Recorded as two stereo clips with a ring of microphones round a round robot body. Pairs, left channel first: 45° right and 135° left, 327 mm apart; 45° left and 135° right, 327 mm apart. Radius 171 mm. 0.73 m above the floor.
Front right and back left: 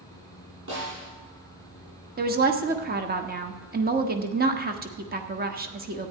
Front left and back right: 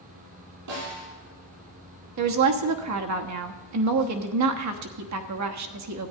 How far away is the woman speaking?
About 1.2 m.